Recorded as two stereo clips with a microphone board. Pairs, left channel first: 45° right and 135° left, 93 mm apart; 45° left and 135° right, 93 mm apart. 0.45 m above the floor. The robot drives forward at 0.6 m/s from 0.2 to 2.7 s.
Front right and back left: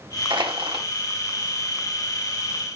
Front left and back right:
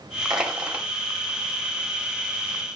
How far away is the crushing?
About 1.5 m.